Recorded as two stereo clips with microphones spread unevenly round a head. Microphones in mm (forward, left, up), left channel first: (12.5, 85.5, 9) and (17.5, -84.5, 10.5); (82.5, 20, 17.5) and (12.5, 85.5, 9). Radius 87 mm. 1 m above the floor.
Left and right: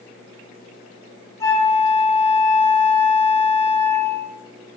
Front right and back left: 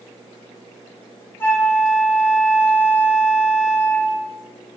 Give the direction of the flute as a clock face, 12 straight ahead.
11 o'clock.